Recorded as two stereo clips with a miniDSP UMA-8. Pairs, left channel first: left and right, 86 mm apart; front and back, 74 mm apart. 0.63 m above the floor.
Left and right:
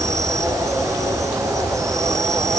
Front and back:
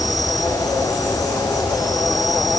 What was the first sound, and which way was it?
An insect, 40° right.